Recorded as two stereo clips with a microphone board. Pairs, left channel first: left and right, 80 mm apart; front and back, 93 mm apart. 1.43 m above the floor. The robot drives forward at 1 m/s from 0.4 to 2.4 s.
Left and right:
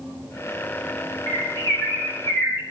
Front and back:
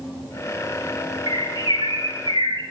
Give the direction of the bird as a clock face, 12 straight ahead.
8 o'clock.